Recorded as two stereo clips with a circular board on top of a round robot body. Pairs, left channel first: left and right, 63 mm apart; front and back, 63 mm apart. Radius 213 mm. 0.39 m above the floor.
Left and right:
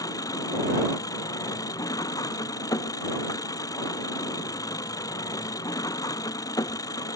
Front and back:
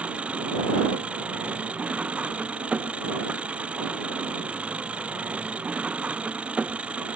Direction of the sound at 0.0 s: 110° left.